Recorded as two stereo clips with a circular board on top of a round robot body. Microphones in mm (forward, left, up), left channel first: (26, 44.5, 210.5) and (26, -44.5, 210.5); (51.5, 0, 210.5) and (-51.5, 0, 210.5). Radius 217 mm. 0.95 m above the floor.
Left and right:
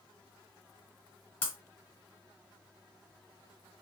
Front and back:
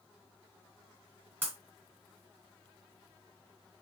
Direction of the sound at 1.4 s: 105° left.